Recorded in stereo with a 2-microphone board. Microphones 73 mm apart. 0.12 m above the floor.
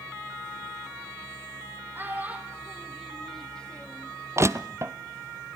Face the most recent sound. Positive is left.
turn(degrees=-40)  # may be behind; listen again after turning